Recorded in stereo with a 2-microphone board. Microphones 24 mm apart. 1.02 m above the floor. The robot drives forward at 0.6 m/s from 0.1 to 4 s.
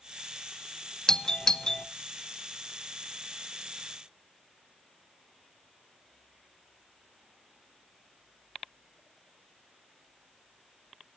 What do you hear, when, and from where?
1.1 s a doorbell: 25° left (ahead or behind), 0.7 m; by 1.9 s 30° left (ahead or behind), 0.6 m